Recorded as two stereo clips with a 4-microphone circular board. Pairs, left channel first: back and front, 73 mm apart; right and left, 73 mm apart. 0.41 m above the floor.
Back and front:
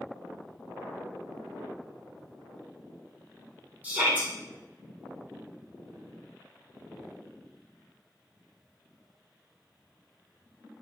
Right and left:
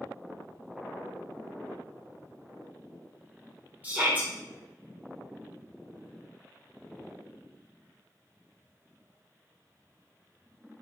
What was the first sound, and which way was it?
A shout, 45° left.